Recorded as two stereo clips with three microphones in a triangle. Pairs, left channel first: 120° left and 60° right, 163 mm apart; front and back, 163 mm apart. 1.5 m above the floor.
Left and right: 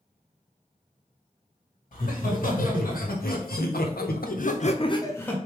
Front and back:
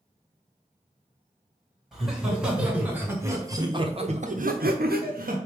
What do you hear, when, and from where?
1.9 s laughter: 90° left, 1.9 m; by 5.4 s 160° right, 0.8 m